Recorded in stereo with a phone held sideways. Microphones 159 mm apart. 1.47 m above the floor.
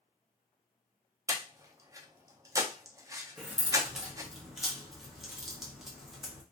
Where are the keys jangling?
Centre (ahead or behind), 0.7 m.